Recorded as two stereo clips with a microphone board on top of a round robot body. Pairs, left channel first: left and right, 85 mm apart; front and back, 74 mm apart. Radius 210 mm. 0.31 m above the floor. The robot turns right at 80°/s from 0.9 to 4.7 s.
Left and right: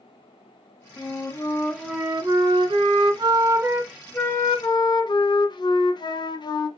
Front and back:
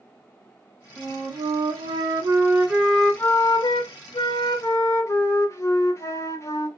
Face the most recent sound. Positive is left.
turn(degrees=55)